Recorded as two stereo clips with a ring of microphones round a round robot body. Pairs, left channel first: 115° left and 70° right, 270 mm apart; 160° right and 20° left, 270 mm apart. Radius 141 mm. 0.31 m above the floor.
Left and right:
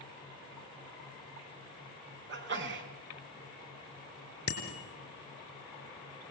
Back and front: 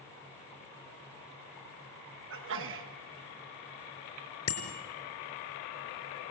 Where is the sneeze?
20° right, 4 m.